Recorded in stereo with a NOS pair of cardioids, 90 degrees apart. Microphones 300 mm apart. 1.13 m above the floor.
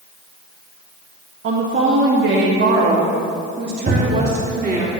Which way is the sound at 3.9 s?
25° right.